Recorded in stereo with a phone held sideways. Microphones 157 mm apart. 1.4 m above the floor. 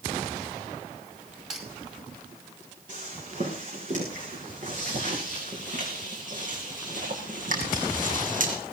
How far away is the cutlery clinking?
About 5 m.